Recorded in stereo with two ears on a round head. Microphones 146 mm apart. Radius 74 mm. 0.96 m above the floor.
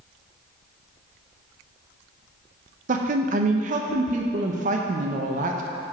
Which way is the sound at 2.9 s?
50° right (ahead or behind).